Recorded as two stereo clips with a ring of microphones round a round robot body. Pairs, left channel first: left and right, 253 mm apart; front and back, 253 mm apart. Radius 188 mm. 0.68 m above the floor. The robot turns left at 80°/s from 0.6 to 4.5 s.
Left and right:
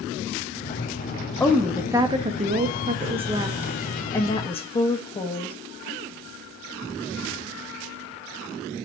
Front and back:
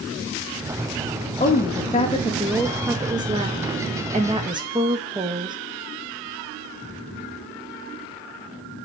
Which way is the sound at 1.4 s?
15° left.